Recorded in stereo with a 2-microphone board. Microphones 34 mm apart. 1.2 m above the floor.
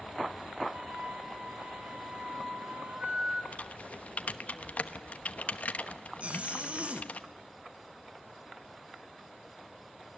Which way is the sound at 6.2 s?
40° right (ahead or behind).